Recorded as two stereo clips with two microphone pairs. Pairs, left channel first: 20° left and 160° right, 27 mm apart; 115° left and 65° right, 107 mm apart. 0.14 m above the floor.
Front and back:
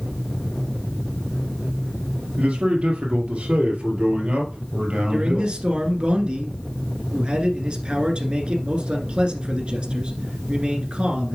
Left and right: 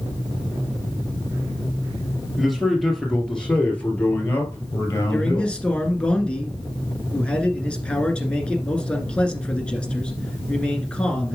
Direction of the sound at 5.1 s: 170° right.